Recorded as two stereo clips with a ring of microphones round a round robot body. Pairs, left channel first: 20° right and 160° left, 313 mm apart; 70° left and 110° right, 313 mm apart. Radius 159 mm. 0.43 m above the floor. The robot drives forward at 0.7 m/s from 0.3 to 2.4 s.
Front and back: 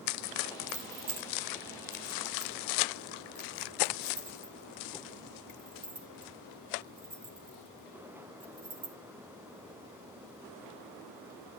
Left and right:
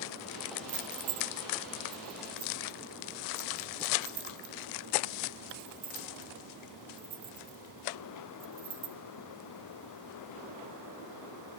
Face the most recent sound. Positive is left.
turn(degrees=-165)